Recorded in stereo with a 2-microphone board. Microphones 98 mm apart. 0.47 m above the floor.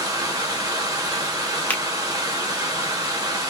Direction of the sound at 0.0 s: 40° right (ahead or behind).